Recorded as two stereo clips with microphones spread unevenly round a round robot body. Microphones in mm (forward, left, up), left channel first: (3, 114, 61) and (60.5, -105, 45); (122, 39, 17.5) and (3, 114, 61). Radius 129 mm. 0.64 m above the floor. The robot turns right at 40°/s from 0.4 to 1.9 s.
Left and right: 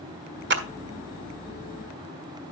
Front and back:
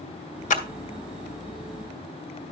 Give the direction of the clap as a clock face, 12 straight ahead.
1 o'clock.